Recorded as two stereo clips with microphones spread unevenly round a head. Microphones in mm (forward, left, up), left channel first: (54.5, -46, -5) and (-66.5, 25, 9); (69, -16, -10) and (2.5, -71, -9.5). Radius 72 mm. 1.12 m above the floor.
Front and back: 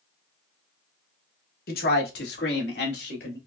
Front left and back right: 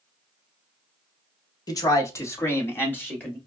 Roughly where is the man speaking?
Ahead.